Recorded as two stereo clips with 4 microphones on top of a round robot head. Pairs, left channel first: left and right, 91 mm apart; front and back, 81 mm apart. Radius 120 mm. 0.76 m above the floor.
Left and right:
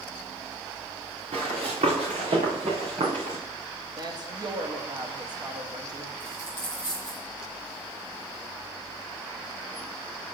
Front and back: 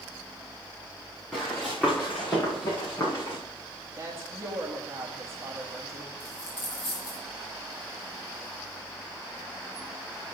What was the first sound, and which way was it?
Running footsteps, 85° right.